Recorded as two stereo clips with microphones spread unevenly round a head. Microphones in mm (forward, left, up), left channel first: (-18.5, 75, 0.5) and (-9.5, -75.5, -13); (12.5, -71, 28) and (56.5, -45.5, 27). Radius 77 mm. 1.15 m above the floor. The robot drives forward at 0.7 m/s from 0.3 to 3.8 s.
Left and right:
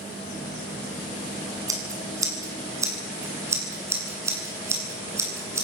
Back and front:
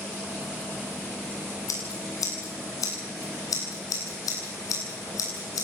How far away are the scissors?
About 7 m.